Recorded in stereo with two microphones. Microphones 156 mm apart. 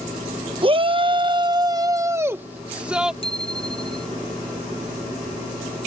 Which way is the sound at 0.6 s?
35° right (ahead or behind).